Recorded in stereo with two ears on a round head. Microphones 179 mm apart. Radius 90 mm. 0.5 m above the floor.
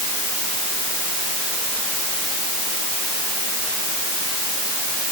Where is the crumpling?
No crumpling in this recording.